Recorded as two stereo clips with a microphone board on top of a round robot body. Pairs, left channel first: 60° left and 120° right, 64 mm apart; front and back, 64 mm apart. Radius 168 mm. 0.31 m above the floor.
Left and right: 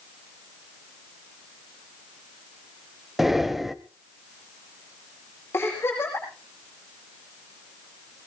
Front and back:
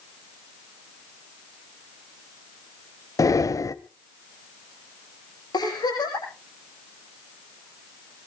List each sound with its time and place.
3.2 s breathing: 35° right, 1.1 m
5.5 s a giggle: 5° left, 9.5 m